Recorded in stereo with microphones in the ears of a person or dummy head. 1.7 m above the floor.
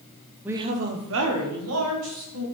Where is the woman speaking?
10° right (ahead or behind), 0.5 m; by 2.4 s 80° right, 1.9 m.